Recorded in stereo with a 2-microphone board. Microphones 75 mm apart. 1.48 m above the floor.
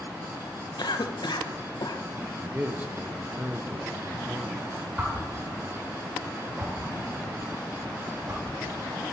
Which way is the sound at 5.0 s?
25° right (ahead or behind).